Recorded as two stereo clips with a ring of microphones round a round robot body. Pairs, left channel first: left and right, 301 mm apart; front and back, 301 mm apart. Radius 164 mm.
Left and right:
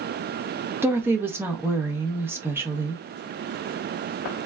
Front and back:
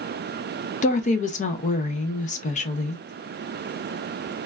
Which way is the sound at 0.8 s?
15° right.